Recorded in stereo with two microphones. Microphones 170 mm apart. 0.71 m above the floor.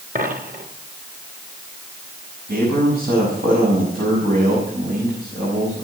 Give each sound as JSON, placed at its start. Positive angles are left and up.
{"t": 0.1, "sound": "a dropped coin", "side_deg": -60, "distance_m": 3.0}
{"t": 2.5, "sound": "a man speaking", "side_deg": -75, "distance_m": 6.0}